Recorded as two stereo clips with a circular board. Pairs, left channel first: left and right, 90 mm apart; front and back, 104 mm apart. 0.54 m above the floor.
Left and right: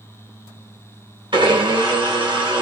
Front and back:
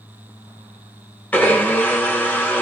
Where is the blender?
75° right, 1.2 m.